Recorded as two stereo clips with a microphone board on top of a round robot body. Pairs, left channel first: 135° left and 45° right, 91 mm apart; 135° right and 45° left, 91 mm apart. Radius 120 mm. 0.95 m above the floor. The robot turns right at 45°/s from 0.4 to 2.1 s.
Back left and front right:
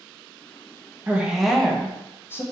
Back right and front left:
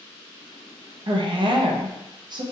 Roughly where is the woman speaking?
Ahead left.